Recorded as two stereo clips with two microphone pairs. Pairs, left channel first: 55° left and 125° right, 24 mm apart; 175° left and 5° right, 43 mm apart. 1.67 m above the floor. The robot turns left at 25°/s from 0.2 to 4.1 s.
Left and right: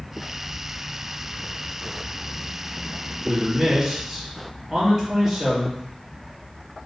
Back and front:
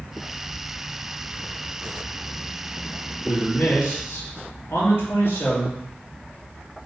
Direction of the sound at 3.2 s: 170° right.